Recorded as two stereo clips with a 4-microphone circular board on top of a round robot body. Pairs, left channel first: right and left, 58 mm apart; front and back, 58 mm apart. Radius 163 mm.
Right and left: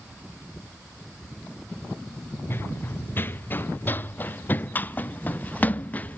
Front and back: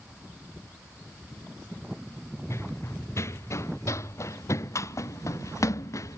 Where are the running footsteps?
40° right; by 6.2 s 30° right.